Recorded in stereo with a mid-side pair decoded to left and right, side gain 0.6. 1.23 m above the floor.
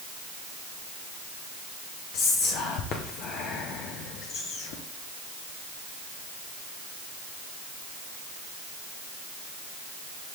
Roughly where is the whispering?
Ahead left.